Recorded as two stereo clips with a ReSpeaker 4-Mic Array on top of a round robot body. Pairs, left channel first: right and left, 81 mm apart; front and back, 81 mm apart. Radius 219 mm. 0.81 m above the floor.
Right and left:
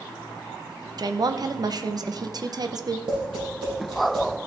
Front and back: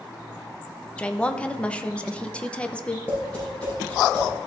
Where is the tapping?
75° left, 5 m.